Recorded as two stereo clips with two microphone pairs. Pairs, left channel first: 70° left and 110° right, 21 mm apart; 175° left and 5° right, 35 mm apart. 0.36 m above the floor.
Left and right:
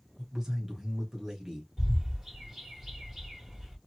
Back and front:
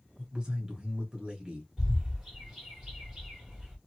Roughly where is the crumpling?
No crumpling in this recording.